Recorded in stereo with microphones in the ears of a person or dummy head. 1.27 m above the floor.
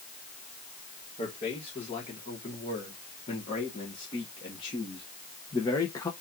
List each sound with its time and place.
1.2 s a man speaking: 35° left (ahead or behind), 3.5 m; by 6.1 s 15° left (ahead or behind), 1.2 m